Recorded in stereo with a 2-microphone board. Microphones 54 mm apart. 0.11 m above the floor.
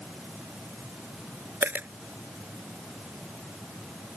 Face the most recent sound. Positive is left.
turn(degrees=-40)  # may be behind; listen again after turning